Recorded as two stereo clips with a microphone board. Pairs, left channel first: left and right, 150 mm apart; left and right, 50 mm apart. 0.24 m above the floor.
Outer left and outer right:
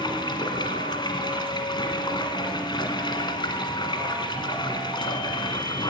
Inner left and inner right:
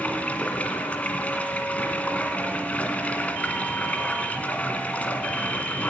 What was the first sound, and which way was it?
Running water, 30° left (ahead or behind).